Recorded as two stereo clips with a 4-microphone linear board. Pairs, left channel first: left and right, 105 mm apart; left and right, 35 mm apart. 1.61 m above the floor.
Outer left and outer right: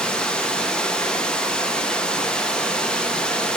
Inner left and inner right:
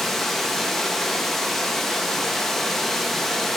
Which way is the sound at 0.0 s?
5° left (ahead or behind).